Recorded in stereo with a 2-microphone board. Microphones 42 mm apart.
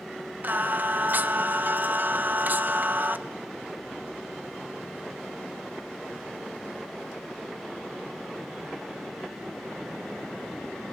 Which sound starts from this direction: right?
Singing, at 0.4 s.